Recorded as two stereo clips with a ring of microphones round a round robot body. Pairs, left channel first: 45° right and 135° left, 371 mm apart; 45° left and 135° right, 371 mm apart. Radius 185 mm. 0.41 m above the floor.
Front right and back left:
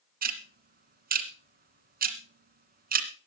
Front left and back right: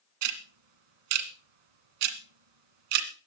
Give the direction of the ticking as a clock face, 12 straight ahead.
5 o'clock.